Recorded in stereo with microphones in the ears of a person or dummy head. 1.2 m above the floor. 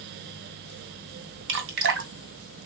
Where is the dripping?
60° right (ahead or behind), 1.9 m.